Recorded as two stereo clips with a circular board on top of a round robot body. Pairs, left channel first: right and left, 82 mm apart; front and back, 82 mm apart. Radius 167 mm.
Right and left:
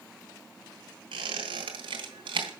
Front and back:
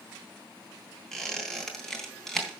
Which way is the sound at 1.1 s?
85° left.